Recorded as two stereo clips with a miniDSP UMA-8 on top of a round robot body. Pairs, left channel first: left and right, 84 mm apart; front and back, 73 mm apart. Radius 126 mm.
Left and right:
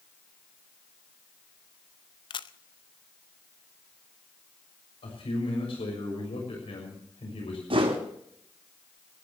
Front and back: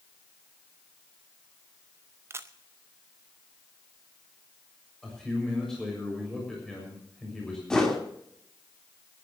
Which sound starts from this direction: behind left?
A camera shutter, at 2.3 s.